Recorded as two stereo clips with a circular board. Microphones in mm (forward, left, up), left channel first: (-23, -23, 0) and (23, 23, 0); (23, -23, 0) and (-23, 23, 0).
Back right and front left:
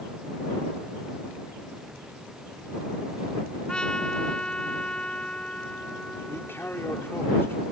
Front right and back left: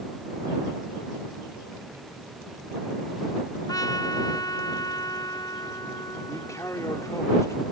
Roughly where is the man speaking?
Right.